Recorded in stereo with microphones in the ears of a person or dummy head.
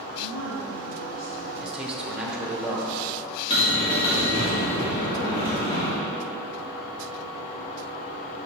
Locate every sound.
0.2 s a woman speaking: 70° left (ahead or behind), 1.0 m; by 1.5 s 75° left (ahead or behind), 2.5 m
1.6 s a man speaking: 5° right (ahead or behind), 1.2 m
3.5 s a bell: 30° left (ahead or behind), 1.6 m